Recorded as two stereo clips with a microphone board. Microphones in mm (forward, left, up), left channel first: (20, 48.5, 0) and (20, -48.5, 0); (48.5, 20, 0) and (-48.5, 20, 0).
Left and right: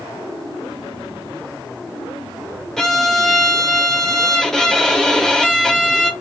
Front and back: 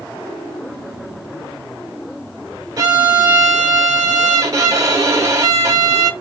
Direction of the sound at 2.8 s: 170° left.